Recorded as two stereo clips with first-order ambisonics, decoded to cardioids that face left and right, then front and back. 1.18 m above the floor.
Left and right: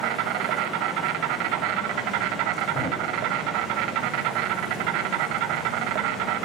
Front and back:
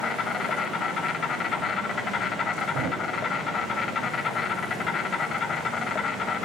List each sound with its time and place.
0.0 s an insect: 70° right, 2.5 m
2.7 s a thud: 150° left, 3.5 m